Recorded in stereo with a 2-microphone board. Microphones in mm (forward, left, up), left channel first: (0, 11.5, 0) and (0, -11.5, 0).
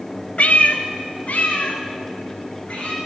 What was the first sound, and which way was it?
A cat meowing, 65° left (ahead or behind).